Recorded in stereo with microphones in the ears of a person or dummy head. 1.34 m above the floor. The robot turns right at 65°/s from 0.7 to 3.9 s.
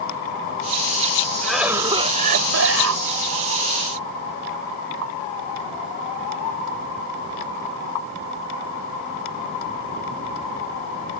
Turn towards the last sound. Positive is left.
turn(degrees=-25)